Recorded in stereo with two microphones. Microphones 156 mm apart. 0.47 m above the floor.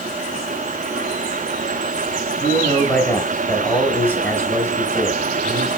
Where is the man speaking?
10° left (ahead or behind), 0.8 m.